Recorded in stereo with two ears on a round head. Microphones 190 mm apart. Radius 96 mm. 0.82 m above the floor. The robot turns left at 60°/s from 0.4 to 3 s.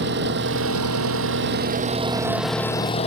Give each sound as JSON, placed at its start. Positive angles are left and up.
{"t": 0.0, "sound": "an engine running", "azimuth_deg": -55}